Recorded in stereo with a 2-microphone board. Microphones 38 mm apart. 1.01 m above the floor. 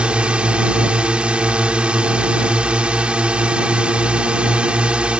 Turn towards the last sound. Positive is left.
turn(degrees=-30)  # may be behind; listen again after turning